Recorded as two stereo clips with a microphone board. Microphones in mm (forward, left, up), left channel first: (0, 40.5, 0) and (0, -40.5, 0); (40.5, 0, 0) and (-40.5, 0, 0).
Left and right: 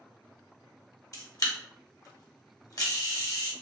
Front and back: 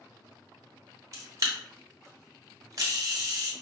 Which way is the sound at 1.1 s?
135° left.